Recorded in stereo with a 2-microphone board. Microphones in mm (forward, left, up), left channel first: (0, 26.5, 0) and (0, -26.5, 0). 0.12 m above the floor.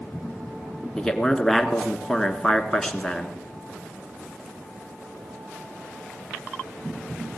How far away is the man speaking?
About 1.2 m.